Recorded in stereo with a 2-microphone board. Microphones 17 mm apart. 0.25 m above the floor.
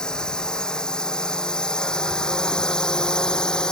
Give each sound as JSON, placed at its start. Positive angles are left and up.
{"t": 0.0, "sound": "a drone", "side_deg": 50}